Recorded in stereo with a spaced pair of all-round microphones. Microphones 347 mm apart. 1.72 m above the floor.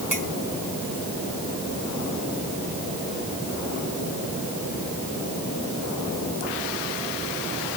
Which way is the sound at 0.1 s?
60° right (ahead or behind).